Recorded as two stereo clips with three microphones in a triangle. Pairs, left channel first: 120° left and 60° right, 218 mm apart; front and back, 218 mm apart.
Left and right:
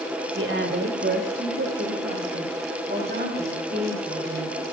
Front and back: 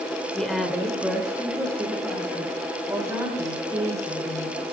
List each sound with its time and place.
0.3 s a woman speaking: 90° right, 1.9 m; by 4.6 s 105° right, 5 m